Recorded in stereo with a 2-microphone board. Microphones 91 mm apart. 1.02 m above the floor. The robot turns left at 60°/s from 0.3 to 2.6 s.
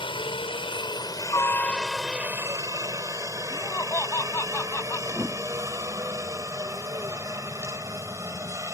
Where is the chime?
No chime in this recording.